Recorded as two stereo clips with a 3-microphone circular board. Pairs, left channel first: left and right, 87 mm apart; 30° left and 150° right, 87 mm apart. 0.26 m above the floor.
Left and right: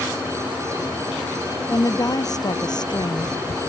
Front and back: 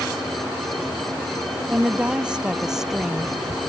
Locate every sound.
1.7 s a woman speaking: 140° left; by 3.4 s 125° left